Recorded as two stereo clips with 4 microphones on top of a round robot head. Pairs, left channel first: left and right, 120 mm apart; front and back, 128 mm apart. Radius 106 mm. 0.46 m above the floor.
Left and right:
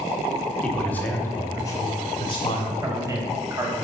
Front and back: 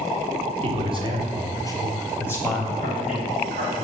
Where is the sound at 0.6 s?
170° left, 1.3 m; by 2.7 s 100° left, 1.3 m.